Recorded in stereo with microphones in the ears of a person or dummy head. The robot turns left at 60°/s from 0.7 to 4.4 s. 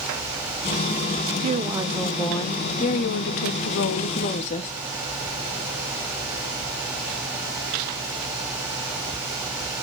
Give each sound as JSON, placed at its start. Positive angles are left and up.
{"t": 1.4, "sound": "a woman speaking", "azimuth_deg": -140, "distance_m": 0.8}